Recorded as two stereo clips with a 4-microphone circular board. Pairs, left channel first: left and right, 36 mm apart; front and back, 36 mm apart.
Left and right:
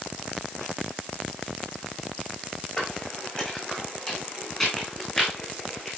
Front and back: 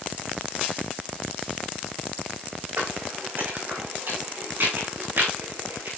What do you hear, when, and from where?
2.8 s footsteps: 150° left, 5 m; by 5.9 s 165° left, 6 m